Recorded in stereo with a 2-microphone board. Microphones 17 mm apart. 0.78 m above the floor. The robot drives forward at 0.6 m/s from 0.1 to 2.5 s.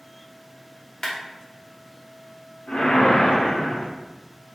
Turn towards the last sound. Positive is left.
turn(degrees=85)